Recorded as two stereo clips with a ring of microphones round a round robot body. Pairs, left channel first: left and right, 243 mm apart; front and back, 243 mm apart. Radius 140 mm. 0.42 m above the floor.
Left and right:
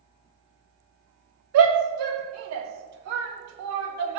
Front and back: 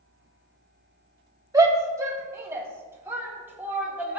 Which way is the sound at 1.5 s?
105° right.